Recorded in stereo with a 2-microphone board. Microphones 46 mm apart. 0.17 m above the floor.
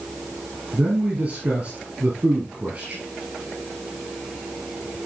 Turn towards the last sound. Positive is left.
turn(degrees=-25)  # may be behind; listen again after turning